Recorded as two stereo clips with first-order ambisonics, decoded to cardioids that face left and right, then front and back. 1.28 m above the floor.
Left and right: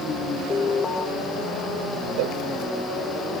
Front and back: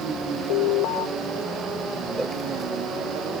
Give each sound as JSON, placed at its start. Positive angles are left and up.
{"t": 0.5, "sound": "an alarm", "azimuth_deg": 20}
{"t": 2.2, "sound": "a cowbell", "azimuth_deg": -95}